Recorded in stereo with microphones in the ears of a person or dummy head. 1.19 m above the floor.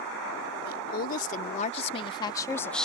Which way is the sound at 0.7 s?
55° left (ahead or behind).